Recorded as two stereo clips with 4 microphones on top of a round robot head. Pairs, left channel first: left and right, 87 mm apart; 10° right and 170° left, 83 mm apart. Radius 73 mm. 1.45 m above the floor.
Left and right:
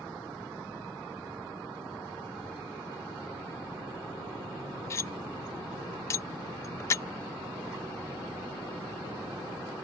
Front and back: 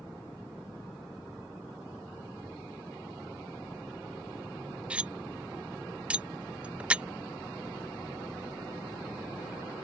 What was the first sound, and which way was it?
Cutlery clinking, 110° left.